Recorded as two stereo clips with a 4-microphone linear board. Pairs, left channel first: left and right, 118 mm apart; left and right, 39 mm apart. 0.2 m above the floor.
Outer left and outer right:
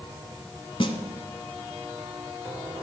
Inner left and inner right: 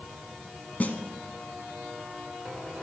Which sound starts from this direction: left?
A snare drum, at 0.8 s.